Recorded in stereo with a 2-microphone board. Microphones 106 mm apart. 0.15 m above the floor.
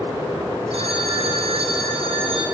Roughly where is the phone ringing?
Right.